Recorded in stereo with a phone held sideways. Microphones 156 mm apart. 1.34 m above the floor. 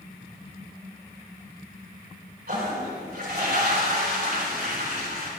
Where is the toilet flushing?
80° right, 4.5 m.